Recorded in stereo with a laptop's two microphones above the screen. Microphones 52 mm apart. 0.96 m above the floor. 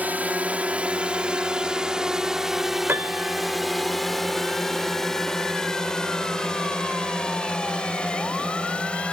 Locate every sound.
0.0 s a drone: 35° right (ahead or behind); by 9.1 s 20° left (ahead or behind)
2.9 s a piano: 40° right (ahead or behind)